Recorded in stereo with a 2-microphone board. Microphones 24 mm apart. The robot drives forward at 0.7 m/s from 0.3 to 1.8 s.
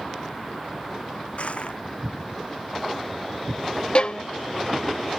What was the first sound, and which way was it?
Crushing, 55° left (ahead or behind).